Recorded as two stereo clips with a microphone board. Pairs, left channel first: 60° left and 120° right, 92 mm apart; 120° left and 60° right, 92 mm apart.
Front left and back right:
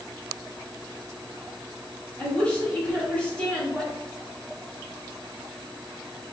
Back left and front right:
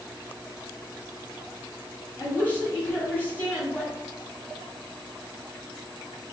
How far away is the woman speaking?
About 1.4 m.